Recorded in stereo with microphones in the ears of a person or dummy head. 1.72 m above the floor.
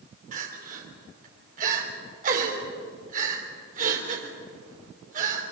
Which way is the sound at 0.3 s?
50° right (ahead or behind).